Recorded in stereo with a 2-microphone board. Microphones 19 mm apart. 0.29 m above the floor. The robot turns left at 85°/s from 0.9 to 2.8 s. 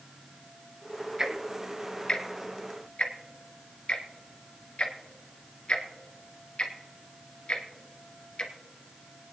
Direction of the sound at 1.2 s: 25° right (ahead or behind).